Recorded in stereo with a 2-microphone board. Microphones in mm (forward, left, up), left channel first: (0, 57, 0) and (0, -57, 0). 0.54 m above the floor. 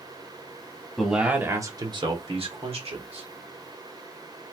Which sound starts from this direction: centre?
A man speaking, at 1.0 s.